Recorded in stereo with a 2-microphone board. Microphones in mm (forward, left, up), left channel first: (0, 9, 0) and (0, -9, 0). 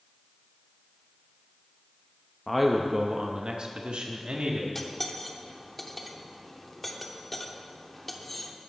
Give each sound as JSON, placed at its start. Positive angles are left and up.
{"t": 2.5, "sound": "a man speaking", "side_deg": 10, "distance_m": 0.7}
{"t": 4.8, "sound": "cutlery clinking", "side_deg": 5, "distance_m": 0.9}